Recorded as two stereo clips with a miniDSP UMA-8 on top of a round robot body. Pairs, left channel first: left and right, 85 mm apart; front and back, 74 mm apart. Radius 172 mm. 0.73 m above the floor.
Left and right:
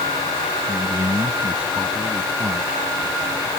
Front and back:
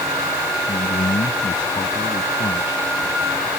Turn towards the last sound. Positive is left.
turn(degrees=-15)